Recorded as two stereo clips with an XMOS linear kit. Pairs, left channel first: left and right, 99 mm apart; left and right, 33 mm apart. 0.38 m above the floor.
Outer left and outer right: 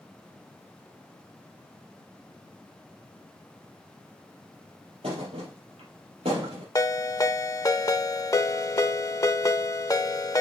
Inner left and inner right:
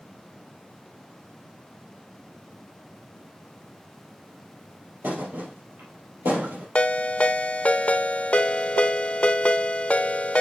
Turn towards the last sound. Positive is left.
turn(degrees=35)  # may be behind; listen again after turning